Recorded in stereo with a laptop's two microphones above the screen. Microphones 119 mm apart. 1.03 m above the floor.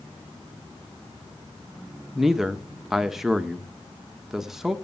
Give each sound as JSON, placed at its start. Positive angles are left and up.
{"t": 2.1, "sound": "a man speaking", "side_deg": -5, "distance_m": 0.8}